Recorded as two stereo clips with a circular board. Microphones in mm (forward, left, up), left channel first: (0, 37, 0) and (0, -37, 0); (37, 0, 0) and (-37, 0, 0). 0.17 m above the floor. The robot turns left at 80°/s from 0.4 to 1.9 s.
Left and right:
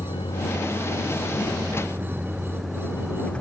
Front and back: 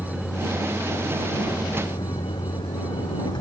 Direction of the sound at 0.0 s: 75° left.